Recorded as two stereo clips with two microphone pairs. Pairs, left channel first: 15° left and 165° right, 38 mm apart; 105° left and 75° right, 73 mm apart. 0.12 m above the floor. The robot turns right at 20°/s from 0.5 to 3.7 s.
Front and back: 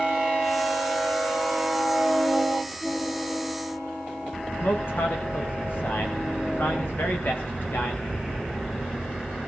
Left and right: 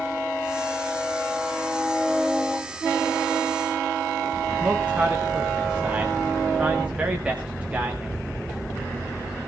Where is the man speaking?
Straight ahead, 8 m.